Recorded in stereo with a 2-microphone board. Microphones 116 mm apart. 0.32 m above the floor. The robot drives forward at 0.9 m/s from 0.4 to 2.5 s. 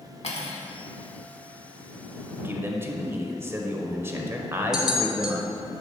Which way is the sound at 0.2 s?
70° left (ahead or behind).